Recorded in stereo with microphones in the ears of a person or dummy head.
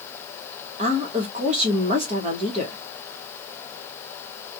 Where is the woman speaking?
40° right (ahead or behind), 1.0 m.